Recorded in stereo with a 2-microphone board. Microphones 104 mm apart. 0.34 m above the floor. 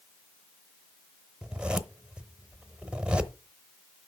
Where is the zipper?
10° right (ahead or behind), 0.8 m.